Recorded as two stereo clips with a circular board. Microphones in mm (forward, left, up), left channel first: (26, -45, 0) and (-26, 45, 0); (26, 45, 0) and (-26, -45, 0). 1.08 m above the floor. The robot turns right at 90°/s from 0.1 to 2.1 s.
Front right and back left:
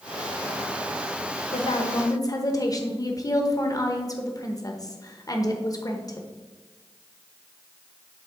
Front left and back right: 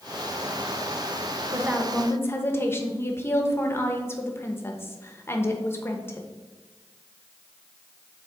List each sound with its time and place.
1.5 s a woman speaking: 60° right, 0.9 m; by 6.3 s 5° right, 0.9 m